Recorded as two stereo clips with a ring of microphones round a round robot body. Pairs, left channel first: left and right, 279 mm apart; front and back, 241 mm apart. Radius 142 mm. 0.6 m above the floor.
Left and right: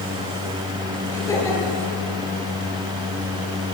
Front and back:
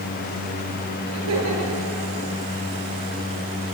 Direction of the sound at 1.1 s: 170° left.